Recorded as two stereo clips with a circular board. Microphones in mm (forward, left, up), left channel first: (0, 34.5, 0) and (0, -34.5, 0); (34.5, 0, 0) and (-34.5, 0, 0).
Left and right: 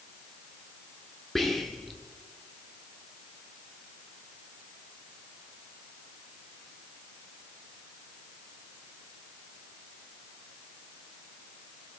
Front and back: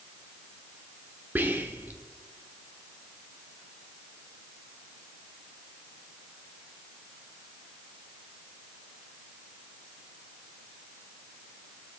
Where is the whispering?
175° left, 0.8 m.